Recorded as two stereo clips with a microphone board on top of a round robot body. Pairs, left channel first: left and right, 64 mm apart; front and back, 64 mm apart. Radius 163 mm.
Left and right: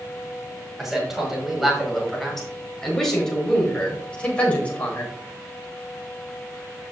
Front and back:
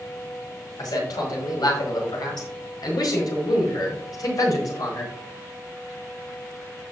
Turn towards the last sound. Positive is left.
turn(degrees=25)